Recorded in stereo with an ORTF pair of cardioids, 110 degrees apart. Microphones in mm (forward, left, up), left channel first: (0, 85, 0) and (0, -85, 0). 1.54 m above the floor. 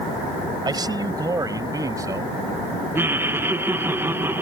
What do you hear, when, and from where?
0.7 s a man speaking: 25° right; by 2.4 s 20° right
3.0 s laughter: 15° right